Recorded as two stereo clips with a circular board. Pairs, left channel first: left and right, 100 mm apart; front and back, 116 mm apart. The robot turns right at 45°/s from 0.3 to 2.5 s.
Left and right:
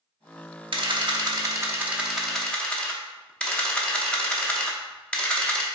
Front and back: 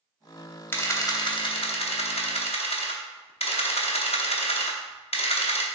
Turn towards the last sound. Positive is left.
turn(degrees=10)